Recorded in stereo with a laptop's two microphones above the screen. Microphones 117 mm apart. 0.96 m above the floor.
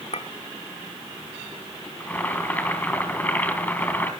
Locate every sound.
0.1 s a clink: 75° left (ahead or behind), 1.2 m
2.0 s boiling: 15° left (ahead or behind), 3 m